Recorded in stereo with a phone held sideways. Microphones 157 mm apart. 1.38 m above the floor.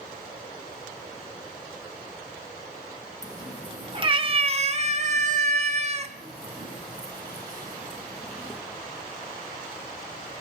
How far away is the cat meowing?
About 3.5 m.